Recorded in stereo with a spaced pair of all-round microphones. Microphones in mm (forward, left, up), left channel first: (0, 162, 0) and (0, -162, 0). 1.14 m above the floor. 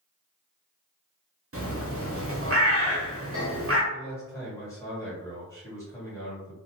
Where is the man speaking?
10° left (ahead or behind), 1.4 m.